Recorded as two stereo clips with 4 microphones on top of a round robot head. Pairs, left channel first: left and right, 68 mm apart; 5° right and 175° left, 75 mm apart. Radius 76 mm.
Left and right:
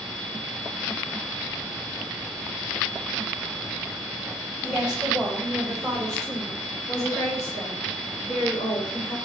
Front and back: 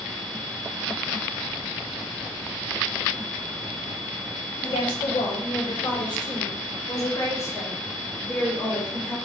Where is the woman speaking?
10° right, 5.5 m; by 9.2 s 75° left, 4 m.